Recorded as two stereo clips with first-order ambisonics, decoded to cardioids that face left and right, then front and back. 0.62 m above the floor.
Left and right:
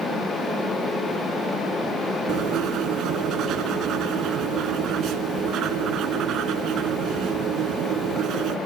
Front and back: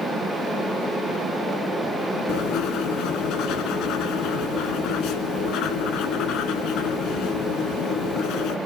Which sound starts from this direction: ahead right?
Writing, at 2.3 s.